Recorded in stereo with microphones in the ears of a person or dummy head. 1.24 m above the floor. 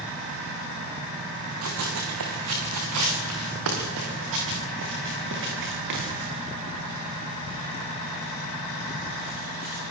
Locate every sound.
1.6 s running footsteps: 75° right (ahead or behind), 5 m; by 9.8 s 40° right (ahead or behind), 13.5 m